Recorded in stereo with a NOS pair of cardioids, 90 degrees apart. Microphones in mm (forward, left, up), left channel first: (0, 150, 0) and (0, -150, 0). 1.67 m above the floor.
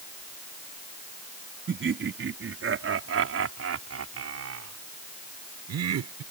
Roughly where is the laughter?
Ahead right.